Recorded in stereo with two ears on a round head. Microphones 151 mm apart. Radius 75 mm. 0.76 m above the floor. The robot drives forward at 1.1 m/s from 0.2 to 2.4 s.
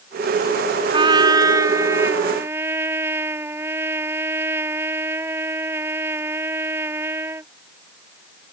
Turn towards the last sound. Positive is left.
turn(degrees=-15)  # may be behind; listen again after turning